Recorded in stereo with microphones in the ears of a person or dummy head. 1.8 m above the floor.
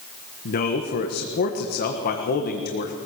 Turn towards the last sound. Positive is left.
turn(degrees=50)  # may be behind; listen again after turning